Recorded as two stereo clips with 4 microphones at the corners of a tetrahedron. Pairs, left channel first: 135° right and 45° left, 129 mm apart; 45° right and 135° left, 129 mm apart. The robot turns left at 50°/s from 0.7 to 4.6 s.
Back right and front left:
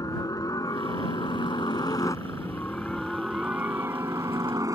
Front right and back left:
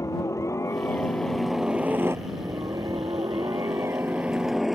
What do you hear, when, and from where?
0.0 s a helicopter: 95° right; by 4.8 s 50° left